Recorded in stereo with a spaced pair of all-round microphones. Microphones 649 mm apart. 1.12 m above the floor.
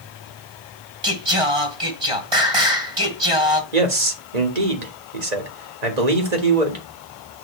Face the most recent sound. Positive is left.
turn(degrees=-85)